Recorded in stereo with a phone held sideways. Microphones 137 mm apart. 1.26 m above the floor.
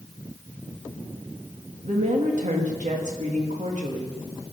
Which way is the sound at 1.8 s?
65° right (ahead or behind).